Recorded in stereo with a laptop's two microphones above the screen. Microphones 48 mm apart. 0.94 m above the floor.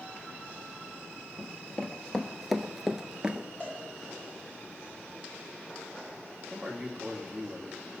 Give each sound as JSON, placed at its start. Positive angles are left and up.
{"t": 1.4, "sound": "running footsteps", "side_deg": 25, "distance_m": 1.2}
{"t": 3.6, "sound": "a cowbell", "side_deg": 25, "distance_m": 4.5}
{"t": 6.5, "sound": "a man speaking", "side_deg": 0, "distance_m": 1.8}